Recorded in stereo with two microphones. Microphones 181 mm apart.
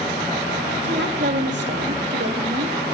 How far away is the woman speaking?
About 1.4 m.